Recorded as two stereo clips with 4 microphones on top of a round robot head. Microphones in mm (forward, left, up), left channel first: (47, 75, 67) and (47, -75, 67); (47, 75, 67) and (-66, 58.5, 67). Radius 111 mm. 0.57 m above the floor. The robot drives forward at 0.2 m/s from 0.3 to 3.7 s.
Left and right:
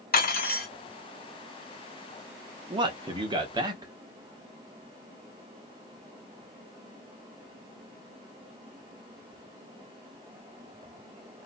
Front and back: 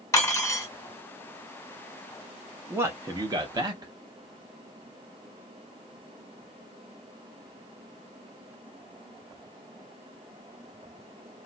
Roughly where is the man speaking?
Behind right.